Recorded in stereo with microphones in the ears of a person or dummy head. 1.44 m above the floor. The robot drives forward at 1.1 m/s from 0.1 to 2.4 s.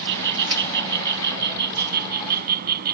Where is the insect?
65° right (ahead or behind); by 3.0 s 55° right (ahead or behind).